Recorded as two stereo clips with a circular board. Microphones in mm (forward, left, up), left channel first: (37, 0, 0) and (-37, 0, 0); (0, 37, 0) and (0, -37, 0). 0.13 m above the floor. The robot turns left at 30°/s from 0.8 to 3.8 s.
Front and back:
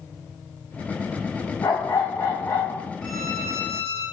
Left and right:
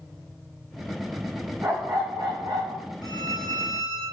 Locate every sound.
1.6 s a dog barking: 35° right, 4 m; by 2.9 s 75° right, 4 m
3.0 s a violin: 90° left, 3.5 m; by 4.0 s 65° left, 3.5 m